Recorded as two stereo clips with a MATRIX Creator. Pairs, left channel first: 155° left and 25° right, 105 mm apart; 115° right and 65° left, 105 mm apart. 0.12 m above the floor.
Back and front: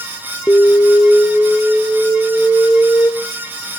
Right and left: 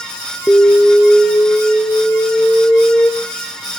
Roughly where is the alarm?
Behind right.